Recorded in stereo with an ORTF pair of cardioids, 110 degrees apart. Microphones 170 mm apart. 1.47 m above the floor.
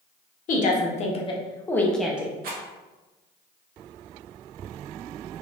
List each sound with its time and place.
0.5 s a woman speaking: 50° left, 1.2 m; by 2.3 s 10° right, 0.8 m
2.4 s a rattle: 65° right, 1.0 m